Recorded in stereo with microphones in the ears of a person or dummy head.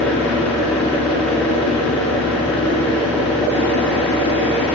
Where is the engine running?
5° left (ahead or behind), 2.0 m.